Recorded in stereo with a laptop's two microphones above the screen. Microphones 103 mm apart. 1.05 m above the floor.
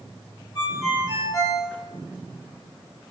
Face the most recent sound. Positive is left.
turn(degrees=45)  # may be behind; listen again after turning